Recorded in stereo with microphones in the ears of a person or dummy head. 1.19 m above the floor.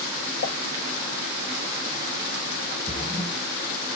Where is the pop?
55° left (ahead or behind), 0.9 m.